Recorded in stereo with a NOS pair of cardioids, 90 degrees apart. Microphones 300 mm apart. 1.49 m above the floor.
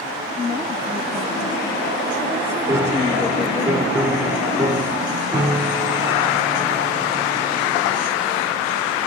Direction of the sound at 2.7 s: 10° right.